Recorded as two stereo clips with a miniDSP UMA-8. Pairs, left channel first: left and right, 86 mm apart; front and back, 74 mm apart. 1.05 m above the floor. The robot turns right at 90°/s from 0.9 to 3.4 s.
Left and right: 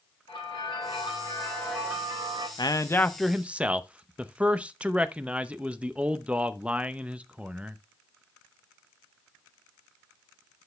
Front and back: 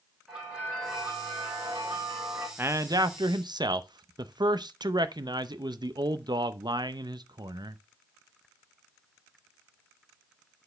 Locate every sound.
0.3 s a bell: 100° left, 4 m; by 2.5 s 120° right, 4 m
2.6 s a man speaking: 120° left, 0.7 m; by 7.8 s 165° right, 0.7 m